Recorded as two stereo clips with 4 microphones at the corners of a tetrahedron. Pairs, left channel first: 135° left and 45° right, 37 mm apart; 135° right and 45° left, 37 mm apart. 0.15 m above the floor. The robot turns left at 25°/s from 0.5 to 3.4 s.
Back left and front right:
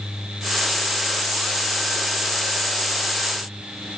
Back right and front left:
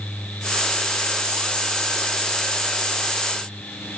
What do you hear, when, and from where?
Only background noise.